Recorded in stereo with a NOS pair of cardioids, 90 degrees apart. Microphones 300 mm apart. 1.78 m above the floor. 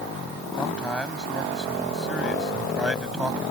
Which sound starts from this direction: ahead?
A man speaking, at 0.6 s.